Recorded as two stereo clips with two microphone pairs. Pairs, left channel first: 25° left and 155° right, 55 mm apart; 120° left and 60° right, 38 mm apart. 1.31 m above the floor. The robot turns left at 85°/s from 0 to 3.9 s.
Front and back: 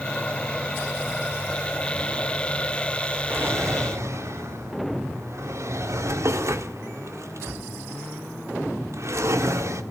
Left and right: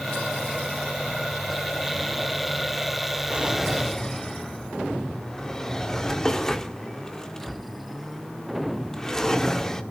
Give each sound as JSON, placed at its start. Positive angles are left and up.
{"t": 3.3, "sound": "a drawer", "azimuth_deg": -110, "distance_m": 1.6}